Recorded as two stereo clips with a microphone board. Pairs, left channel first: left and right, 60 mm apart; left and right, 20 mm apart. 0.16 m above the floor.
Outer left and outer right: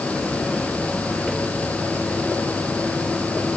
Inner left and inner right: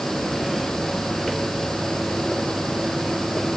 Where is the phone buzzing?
No phone buzzing in this recording.